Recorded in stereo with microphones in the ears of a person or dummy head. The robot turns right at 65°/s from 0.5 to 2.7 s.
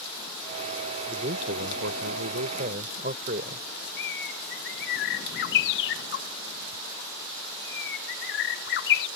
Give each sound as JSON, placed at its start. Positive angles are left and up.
{"t": 1.1, "sound": "a man speaking", "azimuth_deg": -155}
{"t": 4.0, "sound": "a bird", "side_deg": 70}